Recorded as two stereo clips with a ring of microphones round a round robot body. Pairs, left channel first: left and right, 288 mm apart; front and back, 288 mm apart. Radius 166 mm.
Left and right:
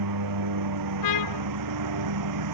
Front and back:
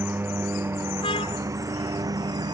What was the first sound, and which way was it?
A lawn mower, 95° right.